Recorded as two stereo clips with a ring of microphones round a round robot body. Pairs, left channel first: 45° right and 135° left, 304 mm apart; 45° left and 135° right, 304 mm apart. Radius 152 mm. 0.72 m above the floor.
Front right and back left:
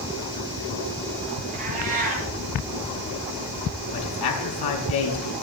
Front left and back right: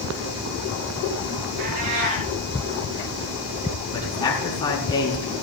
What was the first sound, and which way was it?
A cat meowing, 160° right.